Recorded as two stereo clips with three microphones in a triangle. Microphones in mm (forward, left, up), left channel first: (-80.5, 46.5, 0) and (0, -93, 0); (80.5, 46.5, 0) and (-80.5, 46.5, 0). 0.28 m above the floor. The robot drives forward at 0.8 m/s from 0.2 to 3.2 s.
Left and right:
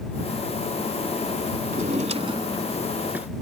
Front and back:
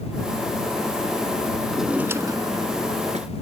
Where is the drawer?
90° right; by 3.3 s 140° right.